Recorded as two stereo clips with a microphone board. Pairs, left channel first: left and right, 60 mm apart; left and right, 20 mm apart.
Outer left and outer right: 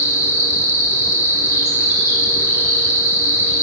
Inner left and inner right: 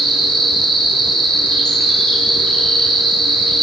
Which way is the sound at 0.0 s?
50° left (ahead or behind).